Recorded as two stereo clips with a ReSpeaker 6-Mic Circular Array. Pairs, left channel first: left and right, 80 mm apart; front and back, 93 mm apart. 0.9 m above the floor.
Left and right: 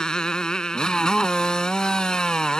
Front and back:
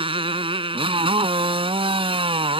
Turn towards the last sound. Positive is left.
turn(degrees=170)